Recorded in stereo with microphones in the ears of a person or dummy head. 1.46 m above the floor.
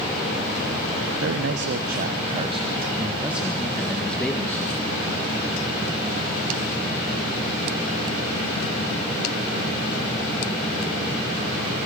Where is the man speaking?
75° right (ahead or behind), 1.2 m; by 4.8 s 15° left (ahead or behind), 2.5 m.